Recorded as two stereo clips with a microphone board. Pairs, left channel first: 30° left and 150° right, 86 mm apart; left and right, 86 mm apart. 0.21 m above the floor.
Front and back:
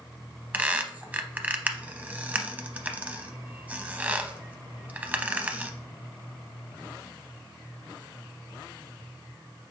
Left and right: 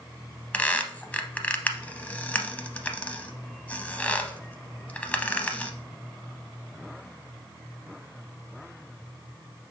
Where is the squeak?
150° left, 0.5 m.